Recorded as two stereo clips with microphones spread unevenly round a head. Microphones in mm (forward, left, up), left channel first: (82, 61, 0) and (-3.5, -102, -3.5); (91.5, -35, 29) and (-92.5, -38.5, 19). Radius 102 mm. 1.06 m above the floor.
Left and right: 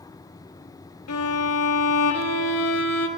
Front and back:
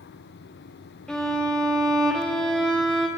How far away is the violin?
About 1.6 m.